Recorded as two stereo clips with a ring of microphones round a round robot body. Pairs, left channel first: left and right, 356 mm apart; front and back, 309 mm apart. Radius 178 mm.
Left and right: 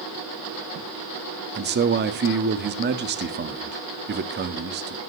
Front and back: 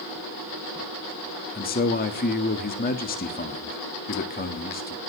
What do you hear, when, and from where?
1.6 s a man speaking: 45° right, 1.5 m